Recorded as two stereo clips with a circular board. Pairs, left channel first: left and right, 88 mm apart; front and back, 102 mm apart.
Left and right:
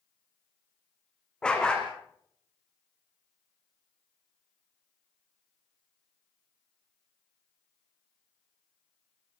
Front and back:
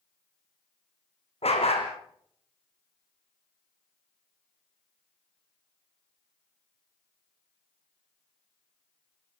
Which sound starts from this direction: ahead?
A dog barking, at 1.4 s.